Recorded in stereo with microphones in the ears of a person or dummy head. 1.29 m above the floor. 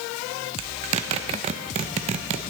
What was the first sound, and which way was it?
A zipper, 40° right (ahead or behind).